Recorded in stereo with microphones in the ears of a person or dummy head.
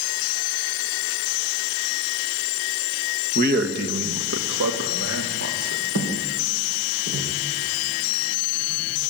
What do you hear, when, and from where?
3.4 s a man speaking: 45° right (ahead or behind), 1.6 m; by 5.8 s 80° right, 3.5 m
6.0 s footsteps: 80° right, 6 m; by 9.1 s 60° right (ahead or behind), 8.5 m